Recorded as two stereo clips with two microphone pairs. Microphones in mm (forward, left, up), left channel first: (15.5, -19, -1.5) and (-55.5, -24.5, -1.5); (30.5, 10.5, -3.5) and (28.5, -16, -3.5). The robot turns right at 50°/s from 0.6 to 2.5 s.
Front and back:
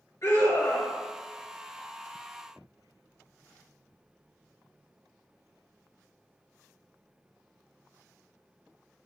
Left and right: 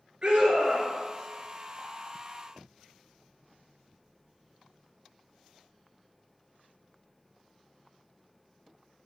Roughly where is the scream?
Ahead right.